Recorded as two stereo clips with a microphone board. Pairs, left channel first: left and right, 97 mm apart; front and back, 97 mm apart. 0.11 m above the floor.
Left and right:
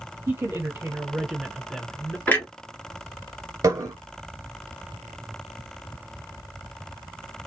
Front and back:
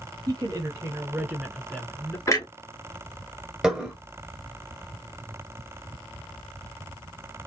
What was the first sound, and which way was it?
A woman speaking, 145° right.